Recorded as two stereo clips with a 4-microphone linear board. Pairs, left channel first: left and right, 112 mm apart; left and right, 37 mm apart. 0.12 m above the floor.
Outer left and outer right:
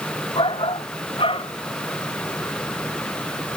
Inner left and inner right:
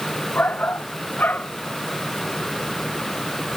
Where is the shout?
55° left (ahead or behind).